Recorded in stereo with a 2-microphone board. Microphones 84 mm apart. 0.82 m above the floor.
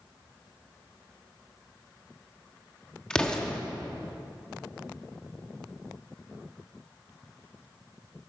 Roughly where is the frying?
No frying in this recording.